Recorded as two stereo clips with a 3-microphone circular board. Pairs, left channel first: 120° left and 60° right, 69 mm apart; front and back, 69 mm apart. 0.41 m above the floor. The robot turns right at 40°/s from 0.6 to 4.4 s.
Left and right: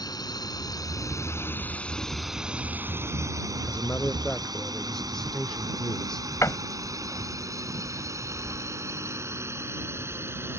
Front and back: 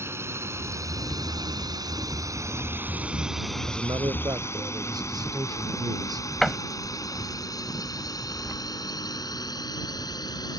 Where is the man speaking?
170° left; by 6.3 s 160° right.